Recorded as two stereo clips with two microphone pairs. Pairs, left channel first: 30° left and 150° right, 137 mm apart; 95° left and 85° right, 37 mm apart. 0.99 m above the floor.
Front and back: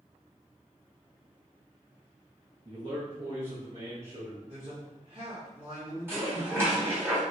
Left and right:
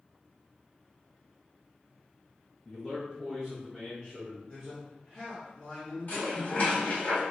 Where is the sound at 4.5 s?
155° left, 1.4 m.